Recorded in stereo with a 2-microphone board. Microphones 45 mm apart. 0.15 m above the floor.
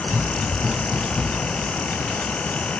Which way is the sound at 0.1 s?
50° right (ahead or behind).